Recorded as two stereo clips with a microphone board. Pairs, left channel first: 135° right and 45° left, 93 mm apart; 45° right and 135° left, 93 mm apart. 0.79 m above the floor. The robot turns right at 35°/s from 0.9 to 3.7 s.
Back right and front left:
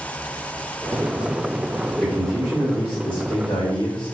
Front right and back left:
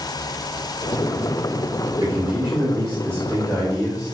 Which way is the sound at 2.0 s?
155° left.